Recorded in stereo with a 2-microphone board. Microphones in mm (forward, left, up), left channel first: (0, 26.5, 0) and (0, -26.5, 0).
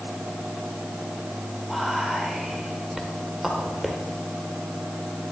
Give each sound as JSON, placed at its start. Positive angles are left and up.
{"t": 1.7, "sound": "whispering", "side_deg": -5, "distance_m": 1.4}